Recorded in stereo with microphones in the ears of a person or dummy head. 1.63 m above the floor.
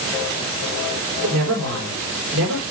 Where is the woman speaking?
65° right (ahead or behind), 6 m.